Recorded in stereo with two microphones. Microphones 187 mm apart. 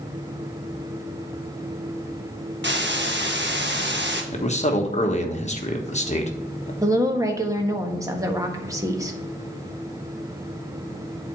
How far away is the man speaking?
About 1.4 m.